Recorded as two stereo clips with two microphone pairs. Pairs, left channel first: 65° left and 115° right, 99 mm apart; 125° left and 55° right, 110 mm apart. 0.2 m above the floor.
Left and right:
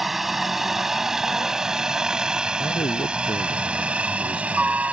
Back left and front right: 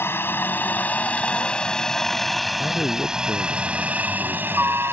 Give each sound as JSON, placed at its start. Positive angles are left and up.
{"t": 0.0, "sound": "a helicopter", "azimuth_deg": 160}
{"t": 2.6, "sound": "a man speaking", "azimuth_deg": 55}